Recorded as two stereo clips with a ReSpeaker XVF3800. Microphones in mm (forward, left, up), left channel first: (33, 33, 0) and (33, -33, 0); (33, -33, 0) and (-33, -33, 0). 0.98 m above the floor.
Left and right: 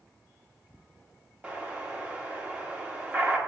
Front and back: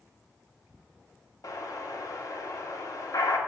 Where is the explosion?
20° right, 1.5 m.